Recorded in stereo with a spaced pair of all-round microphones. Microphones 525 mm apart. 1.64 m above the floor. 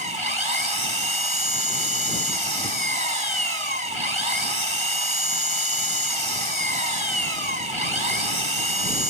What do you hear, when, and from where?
0.0 s an engine running: 75° right (ahead or behind)